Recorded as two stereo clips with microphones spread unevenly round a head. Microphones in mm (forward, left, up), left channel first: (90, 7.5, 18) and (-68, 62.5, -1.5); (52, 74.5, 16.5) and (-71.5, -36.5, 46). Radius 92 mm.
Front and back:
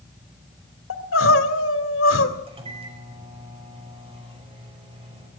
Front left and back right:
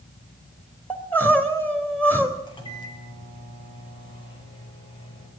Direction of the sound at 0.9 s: 40° right.